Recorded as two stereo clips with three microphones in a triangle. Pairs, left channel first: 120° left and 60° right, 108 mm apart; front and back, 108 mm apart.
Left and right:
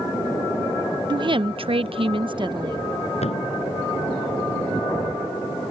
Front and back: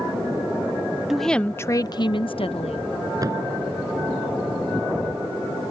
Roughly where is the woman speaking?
Right.